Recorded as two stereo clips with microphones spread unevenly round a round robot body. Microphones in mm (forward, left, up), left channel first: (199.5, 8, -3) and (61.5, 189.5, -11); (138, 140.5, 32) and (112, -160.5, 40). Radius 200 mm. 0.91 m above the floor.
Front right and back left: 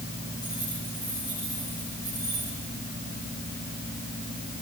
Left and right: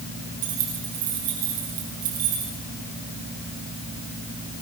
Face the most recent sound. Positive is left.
turn(degrees=-135)